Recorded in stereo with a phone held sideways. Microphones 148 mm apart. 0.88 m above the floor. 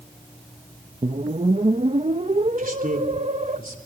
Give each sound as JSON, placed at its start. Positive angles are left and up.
{"t": 1.0, "sound": "a whoosh", "side_deg": -50, "distance_m": 0.8}
{"t": 2.6, "sound": "a man speaking", "side_deg": -75, "distance_m": 3.5}